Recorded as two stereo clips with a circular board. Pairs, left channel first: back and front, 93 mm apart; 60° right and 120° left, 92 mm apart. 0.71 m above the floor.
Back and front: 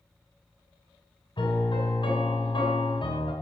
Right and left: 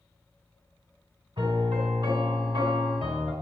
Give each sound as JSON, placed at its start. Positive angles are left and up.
{"t": 1.4, "sound": "a piano", "azimuth_deg": 150, "distance_m": 2.5}